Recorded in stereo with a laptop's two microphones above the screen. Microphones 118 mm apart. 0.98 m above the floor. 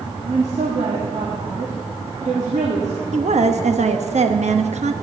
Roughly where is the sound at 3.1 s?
Right.